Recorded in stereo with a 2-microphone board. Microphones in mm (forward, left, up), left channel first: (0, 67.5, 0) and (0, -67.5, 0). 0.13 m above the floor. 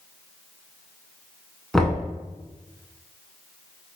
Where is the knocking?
5° left (ahead or behind), 0.7 m.